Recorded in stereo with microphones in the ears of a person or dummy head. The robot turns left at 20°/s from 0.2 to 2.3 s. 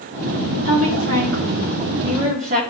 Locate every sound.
0.7 s a woman speaking: 105° right, 3 m; by 2.6 s 140° right, 3 m